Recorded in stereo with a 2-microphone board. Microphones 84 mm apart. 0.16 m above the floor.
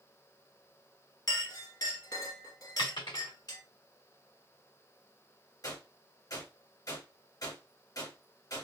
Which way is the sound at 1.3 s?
50° left (ahead or behind).